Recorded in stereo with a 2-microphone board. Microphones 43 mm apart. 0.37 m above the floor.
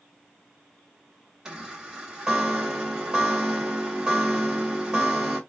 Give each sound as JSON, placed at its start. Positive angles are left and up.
{"t": 1.4, "sound": "a chime", "side_deg": -15, "distance_m": 1.8}